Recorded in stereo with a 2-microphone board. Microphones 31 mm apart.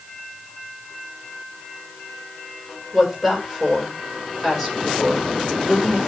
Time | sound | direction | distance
2.9 | a woman speaking | centre (ahead or behind) | 5 m